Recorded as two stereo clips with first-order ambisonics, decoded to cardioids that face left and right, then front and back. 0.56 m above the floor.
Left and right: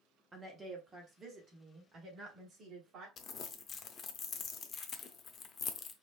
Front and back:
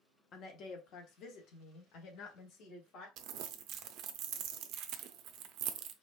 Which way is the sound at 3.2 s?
145° left.